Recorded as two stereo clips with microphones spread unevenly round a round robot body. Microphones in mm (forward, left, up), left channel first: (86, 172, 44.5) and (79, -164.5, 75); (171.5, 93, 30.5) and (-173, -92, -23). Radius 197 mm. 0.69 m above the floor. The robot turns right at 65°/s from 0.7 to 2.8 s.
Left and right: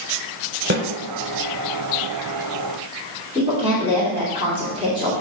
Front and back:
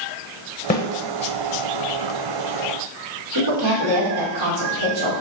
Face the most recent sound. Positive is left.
turn(degrees=-170)